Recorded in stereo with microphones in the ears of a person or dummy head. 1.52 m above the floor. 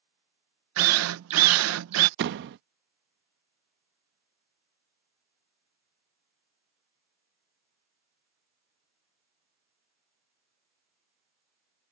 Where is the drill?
85° right.